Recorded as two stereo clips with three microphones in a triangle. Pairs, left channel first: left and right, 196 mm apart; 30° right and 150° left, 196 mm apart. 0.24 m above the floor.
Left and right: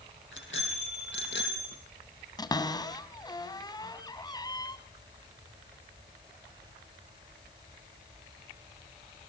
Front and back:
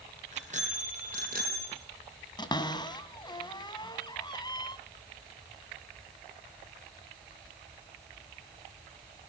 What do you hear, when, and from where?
0.3 s a bicycle bell: 95° left, 6 m; by 1.8 s 115° left, 5.5 m
2.4 s a cupboard door: 30° left, 1.8 m